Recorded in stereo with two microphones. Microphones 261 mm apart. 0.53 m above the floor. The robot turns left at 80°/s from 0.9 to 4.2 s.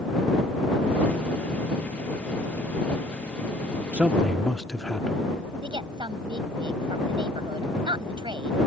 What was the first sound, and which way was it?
A man speaking, 5° right (ahead or behind).